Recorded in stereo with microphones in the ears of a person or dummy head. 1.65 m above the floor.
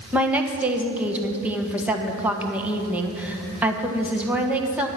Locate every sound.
0.1 s a woman speaking: 10° right (ahead or behind), 1.4 m